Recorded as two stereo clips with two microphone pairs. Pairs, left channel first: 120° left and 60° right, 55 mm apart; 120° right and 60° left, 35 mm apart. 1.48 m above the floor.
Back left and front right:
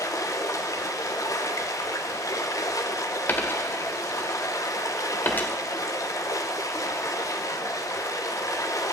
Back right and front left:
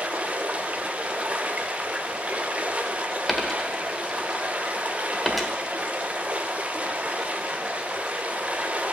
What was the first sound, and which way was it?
Running water, 110° left.